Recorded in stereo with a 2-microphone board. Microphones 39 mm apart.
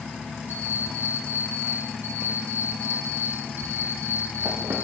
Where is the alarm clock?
70° right (ahead or behind), 8.5 m.